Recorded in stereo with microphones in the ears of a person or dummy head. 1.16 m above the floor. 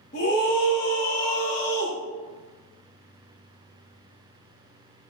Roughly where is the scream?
Left.